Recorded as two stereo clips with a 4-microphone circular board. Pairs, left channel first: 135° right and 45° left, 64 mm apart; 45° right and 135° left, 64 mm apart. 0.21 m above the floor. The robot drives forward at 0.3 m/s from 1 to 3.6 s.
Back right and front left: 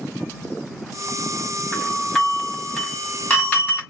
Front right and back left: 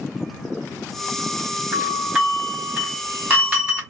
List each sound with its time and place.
1.7 s a doorbell: 175° right, 1.5 m; by 3.8 s straight behind, 1.7 m